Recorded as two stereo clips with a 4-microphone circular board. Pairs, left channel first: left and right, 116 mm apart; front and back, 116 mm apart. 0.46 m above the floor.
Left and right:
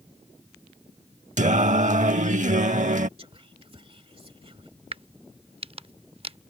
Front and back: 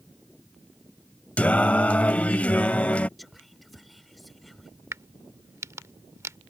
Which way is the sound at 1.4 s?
80° right.